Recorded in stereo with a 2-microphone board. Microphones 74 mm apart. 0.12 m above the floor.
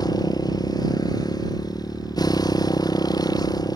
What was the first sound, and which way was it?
A motorcycle, 65° left (ahead or behind).